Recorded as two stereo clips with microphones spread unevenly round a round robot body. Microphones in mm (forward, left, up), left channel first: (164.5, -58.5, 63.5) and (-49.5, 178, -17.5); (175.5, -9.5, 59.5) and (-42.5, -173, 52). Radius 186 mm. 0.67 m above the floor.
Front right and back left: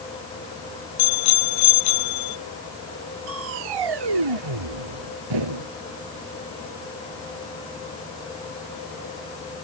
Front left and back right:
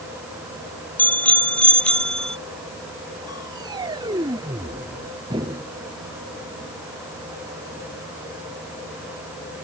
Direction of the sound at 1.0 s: 45° right.